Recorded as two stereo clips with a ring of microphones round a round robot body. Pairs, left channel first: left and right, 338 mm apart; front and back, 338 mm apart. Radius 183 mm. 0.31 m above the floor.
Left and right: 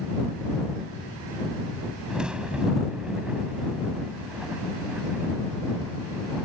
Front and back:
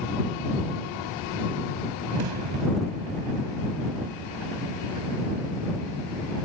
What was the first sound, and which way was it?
A crack, 175° right.